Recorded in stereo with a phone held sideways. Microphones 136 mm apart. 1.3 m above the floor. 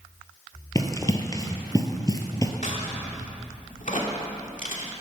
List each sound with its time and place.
0.8 s running footsteps: 25° left (ahead or behind), 1.4 m
2.6 s a crack: 65° left (ahead or behind), 2.5 m